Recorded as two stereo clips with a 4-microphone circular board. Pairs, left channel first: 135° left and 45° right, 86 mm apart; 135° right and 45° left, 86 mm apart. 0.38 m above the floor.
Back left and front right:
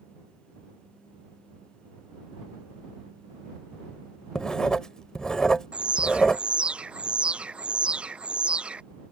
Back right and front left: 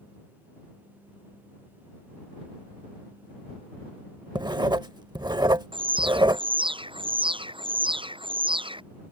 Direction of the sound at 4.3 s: 55° left.